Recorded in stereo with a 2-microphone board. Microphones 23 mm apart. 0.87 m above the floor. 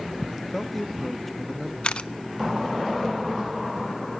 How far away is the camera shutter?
About 0.7 m.